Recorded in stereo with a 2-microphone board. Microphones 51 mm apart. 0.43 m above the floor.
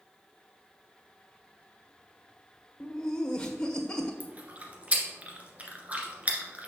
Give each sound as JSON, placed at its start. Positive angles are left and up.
{"t": 2.8, "sound": "laughter", "side_deg": 25, "distance_m": 1.3}
{"t": 4.2, "sound": "chewing", "side_deg": -30, "distance_m": 1.7}